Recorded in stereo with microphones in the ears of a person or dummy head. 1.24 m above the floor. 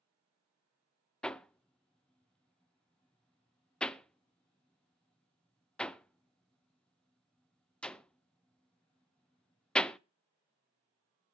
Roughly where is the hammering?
Centre.